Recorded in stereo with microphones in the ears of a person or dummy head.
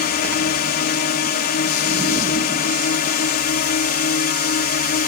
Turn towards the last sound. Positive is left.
turn(degrees=50)  # may be behind; listen again after turning